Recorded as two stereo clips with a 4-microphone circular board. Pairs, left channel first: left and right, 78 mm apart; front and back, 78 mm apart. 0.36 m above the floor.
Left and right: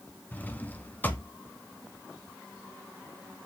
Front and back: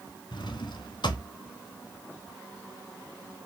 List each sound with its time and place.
0.3 s a drawer: 20° left, 1.4 m